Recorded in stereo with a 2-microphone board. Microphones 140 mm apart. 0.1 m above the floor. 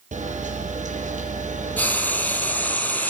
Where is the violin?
I don't hear a violin.